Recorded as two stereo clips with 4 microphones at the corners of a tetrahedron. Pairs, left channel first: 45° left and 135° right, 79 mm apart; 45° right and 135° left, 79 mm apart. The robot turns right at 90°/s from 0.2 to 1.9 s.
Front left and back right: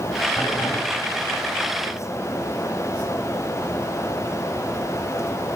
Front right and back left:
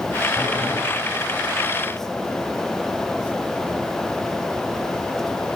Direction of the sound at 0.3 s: 15° left.